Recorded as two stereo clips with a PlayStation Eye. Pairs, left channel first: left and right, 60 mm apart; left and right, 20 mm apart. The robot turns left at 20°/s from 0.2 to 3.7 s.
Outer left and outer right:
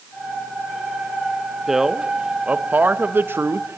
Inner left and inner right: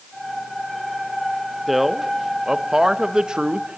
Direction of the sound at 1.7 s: 5° right.